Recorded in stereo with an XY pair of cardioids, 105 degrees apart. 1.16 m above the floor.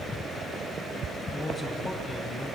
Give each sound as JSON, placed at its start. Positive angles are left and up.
{"t": 1.3, "sound": "a man speaking", "azimuth_deg": 30, "distance_m": 6.5}